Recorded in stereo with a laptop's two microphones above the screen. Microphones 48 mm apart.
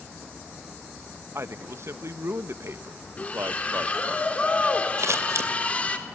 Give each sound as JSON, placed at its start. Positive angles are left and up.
{"t": 1.4, "sound": "a man speaking", "side_deg": -65, "distance_m": 1.0}
{"t": 3.2, "sound": "a splash", "side_deg": 30, "distance_m": 3.0}
{"t": 5.0, "sound": "scissors", "side_deg": -85, "distance_m": 2.5}